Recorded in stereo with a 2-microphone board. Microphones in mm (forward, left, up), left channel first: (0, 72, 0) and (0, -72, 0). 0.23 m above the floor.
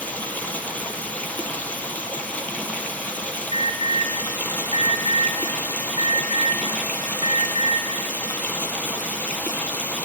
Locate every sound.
0.0 s running water: 10° left (ahead or behind), 0.7 m
3.5 s an alarm: 40° right (ahead or behind), 1.4 m